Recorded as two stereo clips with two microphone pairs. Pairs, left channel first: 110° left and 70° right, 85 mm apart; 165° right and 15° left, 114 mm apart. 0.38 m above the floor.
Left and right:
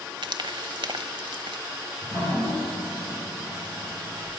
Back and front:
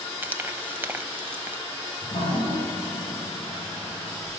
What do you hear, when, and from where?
0.2 s frying: 55° right, 0.8 m
2.0 s dripping: 170° left, 9.5 m